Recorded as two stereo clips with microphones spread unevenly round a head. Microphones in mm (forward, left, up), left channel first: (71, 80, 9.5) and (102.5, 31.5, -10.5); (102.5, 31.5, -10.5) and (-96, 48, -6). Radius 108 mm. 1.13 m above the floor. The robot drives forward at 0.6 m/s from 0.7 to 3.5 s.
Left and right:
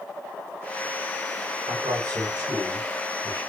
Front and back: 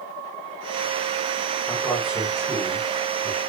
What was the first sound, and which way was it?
A man speaking, 95° right.